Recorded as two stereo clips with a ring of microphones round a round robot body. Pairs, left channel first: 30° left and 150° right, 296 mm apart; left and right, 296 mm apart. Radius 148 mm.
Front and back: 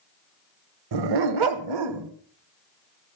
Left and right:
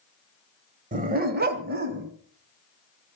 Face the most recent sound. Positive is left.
turn(degrees=-145)